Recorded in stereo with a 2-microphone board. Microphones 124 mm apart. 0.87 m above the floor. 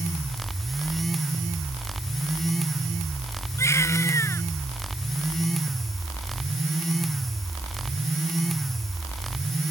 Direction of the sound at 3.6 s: 20° left (ahead or behind).